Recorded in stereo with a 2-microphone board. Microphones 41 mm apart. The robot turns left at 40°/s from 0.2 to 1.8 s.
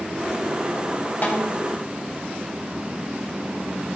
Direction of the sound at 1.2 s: 40° left (ahead or behind).